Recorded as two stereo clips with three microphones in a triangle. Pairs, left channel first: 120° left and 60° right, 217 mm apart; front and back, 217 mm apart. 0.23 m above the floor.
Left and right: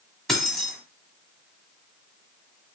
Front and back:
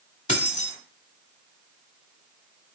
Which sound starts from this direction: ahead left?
Keys jangling, at 0.3 s.